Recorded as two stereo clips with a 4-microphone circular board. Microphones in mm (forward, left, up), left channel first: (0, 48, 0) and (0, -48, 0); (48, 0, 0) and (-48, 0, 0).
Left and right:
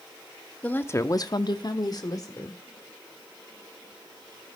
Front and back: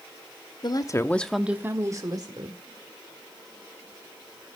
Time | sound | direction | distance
0.6 | a woman speaking | 20° left | 0.9 m